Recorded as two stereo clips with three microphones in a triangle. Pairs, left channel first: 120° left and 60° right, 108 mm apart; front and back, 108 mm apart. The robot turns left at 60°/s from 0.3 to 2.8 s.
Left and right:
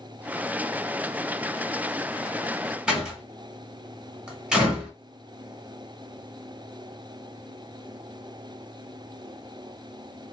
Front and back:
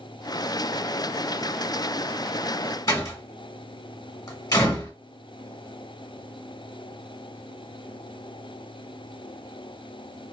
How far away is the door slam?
About 1.1 m.